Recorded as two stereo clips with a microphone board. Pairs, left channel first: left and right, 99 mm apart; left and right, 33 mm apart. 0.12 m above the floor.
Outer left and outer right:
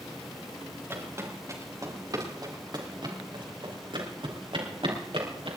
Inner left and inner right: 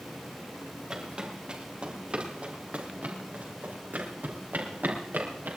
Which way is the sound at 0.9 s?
25° right (ahead or behind).